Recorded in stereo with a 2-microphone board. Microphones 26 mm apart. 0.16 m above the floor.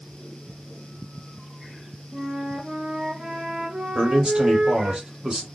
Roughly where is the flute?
Right.